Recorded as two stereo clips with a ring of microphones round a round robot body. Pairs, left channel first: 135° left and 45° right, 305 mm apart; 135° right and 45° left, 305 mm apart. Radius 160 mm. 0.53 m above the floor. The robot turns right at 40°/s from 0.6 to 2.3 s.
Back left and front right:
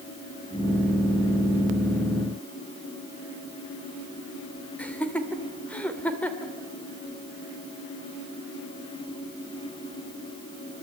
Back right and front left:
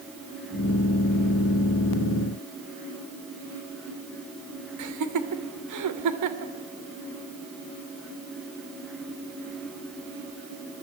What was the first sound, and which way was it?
Laughter, 50° left.